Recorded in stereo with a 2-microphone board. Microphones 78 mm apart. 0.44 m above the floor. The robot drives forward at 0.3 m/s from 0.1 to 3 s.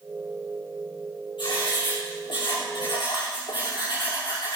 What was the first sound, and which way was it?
Writing, 80° left.